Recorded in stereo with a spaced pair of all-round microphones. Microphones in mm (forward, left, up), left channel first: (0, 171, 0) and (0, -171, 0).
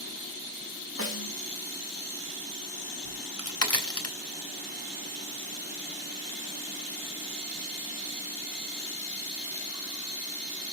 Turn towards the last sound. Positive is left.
turn(degrees=45)  # may be behind; listen again after turning